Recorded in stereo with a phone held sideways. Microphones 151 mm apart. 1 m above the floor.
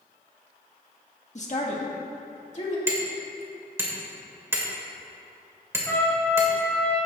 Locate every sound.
1.4 s a woman speaking: 50° left (ahead or behind), 1.8 m
2.9 s hammering: 15° right (ahead or behind), 2.5 m
5.9 s a trumpet: 15° left (ahead or behind), 3 m